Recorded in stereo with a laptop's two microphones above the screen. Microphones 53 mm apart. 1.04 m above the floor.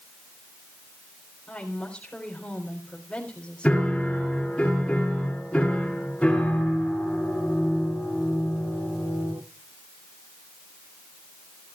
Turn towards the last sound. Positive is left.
turn(degrees=10)  # may be behind; listen again after turning